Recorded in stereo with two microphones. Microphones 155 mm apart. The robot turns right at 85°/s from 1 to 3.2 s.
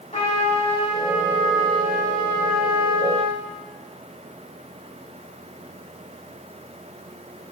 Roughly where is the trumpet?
Ahead left.